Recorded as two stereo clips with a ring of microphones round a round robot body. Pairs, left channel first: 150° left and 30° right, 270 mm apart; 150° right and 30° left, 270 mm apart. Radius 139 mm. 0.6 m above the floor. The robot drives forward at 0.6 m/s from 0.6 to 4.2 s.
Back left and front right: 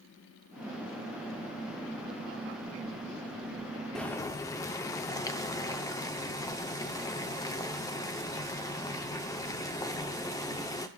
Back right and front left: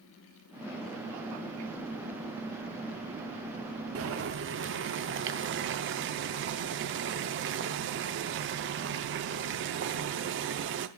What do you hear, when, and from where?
4.0 s boiling: 60° left, 0.9 m; by 10.9 s 70° left, 0.8 m